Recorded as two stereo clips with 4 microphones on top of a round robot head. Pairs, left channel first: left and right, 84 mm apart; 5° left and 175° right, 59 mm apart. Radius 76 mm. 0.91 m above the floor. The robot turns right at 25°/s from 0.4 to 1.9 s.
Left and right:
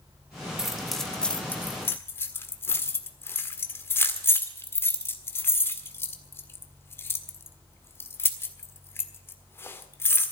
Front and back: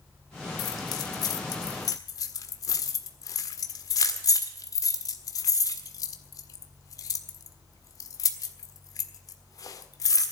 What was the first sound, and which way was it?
Keys jangling, 5° right.